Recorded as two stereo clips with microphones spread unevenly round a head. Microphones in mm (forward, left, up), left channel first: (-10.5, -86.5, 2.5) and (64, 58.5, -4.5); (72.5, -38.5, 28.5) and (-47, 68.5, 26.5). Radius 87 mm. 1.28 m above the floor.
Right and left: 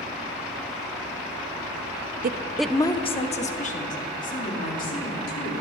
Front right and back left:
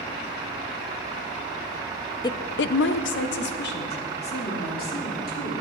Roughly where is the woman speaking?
Ahead left.